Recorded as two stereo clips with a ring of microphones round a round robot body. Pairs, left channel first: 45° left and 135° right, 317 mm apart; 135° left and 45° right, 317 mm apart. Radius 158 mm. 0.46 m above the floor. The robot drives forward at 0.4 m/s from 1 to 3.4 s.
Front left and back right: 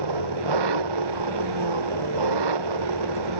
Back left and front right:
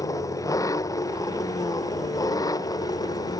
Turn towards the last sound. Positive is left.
turn(degrees=-145)